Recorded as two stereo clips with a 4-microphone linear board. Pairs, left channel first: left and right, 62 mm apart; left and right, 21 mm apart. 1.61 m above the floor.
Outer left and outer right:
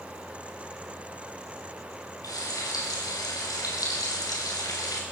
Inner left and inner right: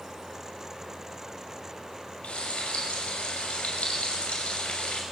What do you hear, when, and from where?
2.2 s frying: 85° left, 6.5 m